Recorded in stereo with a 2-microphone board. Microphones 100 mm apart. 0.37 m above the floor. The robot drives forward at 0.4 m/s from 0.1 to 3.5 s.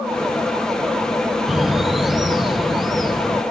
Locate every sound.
1.5 s a bird: 5° right (ahead or behind), 0.6 m; by 3.4 s centre (ahead or behind), 1.4 m